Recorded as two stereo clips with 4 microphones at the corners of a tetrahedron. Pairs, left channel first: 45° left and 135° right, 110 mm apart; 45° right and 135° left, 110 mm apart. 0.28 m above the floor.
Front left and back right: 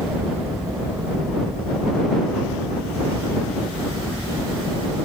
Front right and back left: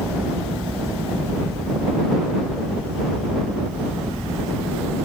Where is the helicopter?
155° right; by 5.0 s 145° right.